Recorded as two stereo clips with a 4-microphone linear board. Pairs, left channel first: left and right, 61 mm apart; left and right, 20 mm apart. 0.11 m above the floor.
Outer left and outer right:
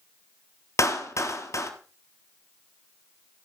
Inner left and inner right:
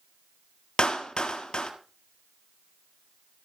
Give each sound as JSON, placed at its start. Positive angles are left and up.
{"t": 0.8, "sound": "a clap", "side_deg": 55, "distance_m": 1.9}